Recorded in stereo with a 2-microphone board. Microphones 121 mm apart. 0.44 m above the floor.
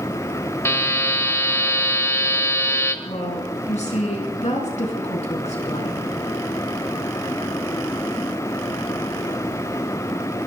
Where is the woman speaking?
70° left (ahead or behind), 4.5 m.